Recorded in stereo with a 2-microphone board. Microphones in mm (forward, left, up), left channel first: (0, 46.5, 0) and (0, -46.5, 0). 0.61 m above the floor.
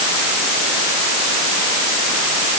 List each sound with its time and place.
Only background noise.